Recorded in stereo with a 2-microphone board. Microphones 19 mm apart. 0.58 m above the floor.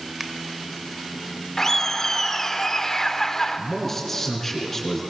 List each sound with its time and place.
0.2 s a finger snap: 20° right (ahead or behind), 2.5 m
1.6 s laughter: 25° left (ahead or behind), 1.8 m
3.6 s a man speaking: 15° left (ahead or behind), 6 m